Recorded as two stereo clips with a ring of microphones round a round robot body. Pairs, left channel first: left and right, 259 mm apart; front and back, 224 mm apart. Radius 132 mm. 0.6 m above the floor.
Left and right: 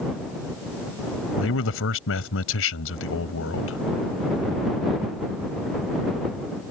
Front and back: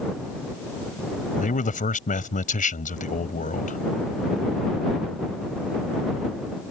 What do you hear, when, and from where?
1.4 s a man speaking: 55° left